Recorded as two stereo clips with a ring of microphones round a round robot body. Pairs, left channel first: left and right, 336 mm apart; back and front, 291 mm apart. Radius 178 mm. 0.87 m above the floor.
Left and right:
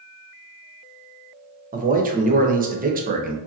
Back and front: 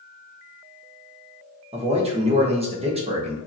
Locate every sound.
1.7 s a man speaking: 50° right, 0.8 m